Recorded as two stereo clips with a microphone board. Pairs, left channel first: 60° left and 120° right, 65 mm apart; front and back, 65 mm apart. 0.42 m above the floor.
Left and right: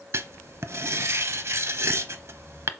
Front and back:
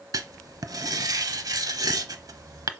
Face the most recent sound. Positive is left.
turn(degrees=-165)